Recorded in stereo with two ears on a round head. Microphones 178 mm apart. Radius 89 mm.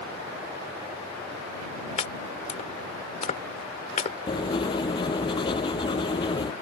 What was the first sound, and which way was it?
Chopping, 35° left (ahead or behind).